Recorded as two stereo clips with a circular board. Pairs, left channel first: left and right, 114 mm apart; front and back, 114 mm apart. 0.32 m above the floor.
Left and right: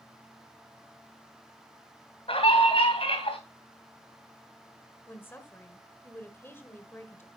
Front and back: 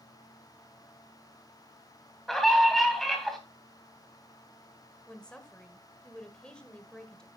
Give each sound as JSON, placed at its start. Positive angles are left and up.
{"t": 2.3, "sound": "a scream", "azimuth_deg": 90, "distance_m": 2.5}
{"t": 5.1, "sound": "a woman speaking", "azimuth_deg": 70, "distance_m": 1.3}